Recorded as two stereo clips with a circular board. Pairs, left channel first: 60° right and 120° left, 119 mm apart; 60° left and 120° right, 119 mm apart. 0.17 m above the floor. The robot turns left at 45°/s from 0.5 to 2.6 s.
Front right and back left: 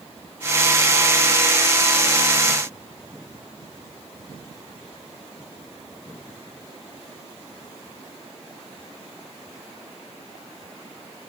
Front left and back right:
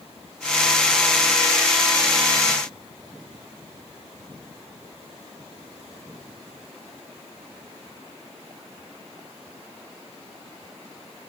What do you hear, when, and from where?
Only background noise.